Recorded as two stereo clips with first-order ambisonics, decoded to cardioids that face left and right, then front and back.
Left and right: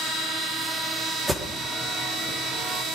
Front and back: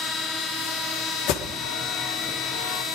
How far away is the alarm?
About 2 m.